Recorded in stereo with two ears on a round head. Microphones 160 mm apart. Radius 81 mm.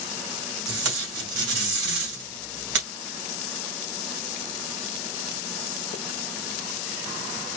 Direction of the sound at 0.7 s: 70° right (ahead or behind).